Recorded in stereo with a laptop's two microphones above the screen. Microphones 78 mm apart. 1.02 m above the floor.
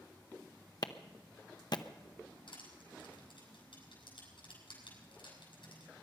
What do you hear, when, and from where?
0.8 s a clap: 55° left (ahead or behind), 0.8 m
2.5 s crushing: 80° left, 7 m